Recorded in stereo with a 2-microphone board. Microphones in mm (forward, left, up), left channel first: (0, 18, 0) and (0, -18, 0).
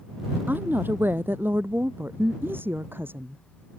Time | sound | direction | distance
0.5 | a woman speaking | 65° right (ahead or behind) | ?